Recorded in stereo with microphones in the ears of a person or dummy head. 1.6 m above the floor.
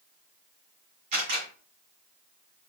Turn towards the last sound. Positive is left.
turn(degrees=-45)  # may be behind; listen again after turning